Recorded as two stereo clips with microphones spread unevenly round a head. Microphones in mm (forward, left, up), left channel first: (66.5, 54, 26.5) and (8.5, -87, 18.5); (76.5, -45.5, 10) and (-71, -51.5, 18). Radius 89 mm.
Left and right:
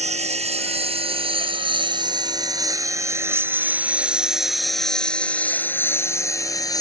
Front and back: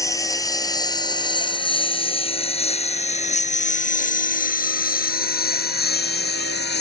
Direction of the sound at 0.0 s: 65° right.